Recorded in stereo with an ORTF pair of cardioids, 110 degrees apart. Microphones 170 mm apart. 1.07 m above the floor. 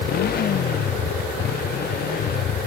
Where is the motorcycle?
60° left.